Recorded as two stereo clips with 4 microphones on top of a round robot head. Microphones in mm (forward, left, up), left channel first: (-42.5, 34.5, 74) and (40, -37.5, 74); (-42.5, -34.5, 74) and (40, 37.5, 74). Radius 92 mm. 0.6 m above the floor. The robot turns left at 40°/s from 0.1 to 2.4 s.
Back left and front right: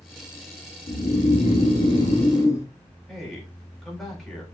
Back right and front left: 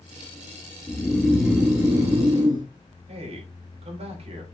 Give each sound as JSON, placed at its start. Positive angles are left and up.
{"t": 0.9, "sound": "snoring", "azimuth_deg": 145, "distance_m": 2.0}
{"t": 3.1, "sound": "a man speaking", "azimuth_deg": 50, "distance_m": 3.0}